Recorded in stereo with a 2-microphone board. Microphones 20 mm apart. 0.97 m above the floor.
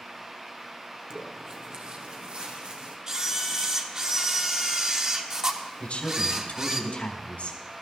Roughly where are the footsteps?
Right.